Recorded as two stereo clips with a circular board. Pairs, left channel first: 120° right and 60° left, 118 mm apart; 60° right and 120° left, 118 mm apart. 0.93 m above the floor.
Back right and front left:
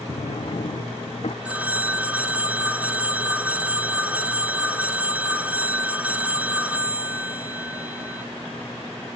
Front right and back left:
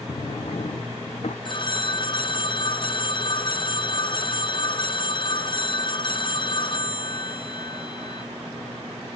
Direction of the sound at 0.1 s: 90° right.